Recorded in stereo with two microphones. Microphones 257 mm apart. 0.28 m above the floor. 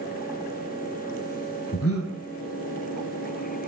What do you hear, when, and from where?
1.7 s breathing: 60° left (ahead or behind), 1.2 m